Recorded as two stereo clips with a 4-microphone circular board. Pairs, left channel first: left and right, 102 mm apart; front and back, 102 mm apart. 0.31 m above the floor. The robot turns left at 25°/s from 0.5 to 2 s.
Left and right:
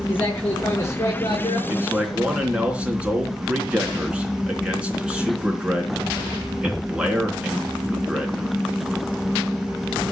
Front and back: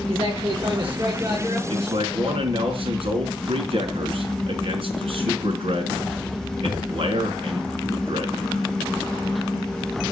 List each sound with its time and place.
0.1 s a man speaking: 160° left, 6.5 m; by 1.6 s 130° left, 6.5 m
1.7 s a man speaking: 160° right, 3.5 m; by 8.6 s 170° right, 3.5 m